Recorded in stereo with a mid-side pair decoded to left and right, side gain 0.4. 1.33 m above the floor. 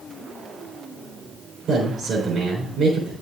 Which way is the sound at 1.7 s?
65° right.